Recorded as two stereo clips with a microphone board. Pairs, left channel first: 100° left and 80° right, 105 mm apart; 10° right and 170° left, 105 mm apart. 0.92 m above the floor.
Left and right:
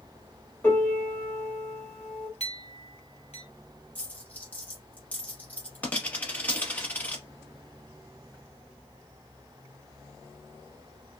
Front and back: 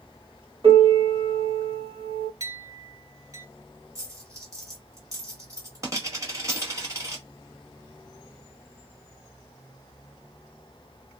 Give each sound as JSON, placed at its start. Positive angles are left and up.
{"t": 0.6, "sound": "a piano", "azimuth_deg": 160, "distance_m": 1.3}
{"t": 2.4, "sound": "a clink", "azimuth_deg": 115, "distance_m": 0.7}
{"t": 4.0, "sound": "a dropped coin", "azimuth_deg": 160, "distance_m": 0.9}